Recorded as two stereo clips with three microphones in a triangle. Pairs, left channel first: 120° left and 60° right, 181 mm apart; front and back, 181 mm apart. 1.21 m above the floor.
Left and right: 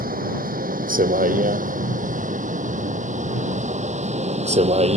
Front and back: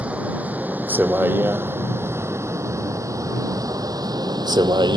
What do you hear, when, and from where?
0.0 s a vehicle: 95° right; by 5.0 s 115° right